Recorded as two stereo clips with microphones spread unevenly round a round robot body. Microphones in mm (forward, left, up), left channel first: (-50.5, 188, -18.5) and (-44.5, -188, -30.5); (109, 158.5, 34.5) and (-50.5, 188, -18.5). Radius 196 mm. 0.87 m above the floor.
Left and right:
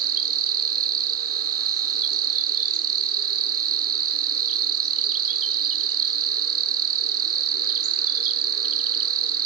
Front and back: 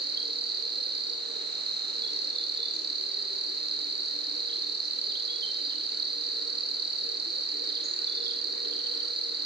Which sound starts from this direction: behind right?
An insect, at 0.0 s.